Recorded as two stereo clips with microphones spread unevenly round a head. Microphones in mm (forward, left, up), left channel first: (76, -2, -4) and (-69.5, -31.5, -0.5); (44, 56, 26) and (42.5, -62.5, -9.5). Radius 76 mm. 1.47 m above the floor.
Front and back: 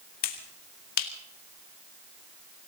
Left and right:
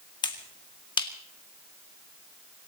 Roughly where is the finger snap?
Ahead left.